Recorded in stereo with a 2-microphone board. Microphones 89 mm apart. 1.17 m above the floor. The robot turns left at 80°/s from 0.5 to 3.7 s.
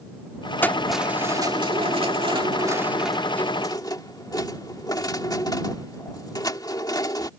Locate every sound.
0.6 s keys jangling: 20° left; by 7.3 s 135° left